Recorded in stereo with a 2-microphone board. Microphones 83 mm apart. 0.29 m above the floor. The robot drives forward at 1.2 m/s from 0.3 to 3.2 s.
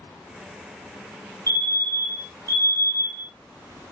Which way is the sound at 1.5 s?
40° right (ahead or behind).